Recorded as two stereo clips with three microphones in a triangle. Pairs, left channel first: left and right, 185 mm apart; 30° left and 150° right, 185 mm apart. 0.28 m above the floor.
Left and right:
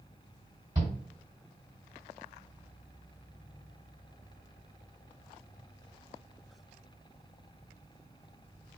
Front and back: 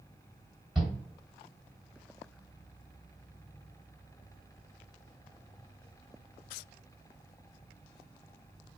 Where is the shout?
70° right, 1.6 m.